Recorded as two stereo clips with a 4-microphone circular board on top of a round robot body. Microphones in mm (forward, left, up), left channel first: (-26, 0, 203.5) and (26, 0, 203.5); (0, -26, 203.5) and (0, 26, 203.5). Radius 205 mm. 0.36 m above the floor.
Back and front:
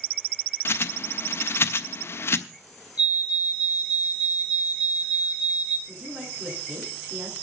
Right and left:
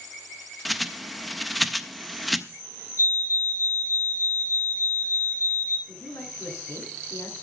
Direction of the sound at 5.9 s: 65° right.